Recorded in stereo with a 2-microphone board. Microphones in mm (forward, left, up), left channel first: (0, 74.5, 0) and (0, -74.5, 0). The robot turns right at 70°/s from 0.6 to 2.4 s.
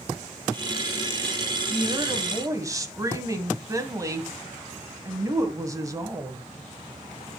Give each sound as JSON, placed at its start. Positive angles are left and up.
{"t": 1.7, "sound": "a woman speaking", "side_deg": -25, "distance_m": 1.7}